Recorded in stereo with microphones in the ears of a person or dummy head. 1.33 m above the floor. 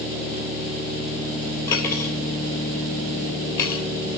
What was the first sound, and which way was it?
Cutlery clinking, 20° left (ahead or behind).